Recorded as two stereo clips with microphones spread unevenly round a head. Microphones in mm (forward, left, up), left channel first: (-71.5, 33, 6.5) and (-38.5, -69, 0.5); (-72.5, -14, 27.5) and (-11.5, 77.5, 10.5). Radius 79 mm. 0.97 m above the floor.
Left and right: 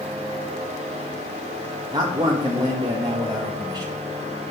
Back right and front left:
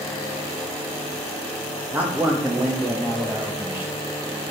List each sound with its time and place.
1.9 s a man speaking: 15° right, 1.0 m